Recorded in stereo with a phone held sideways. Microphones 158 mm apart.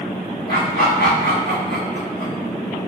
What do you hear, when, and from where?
0.5 s laughter: 75° left (ahead or behind), 0.9 m